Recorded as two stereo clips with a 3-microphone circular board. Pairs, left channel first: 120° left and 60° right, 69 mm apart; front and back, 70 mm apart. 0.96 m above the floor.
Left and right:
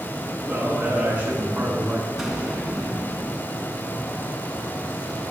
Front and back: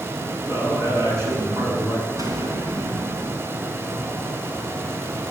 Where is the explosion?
150° right, 4 m.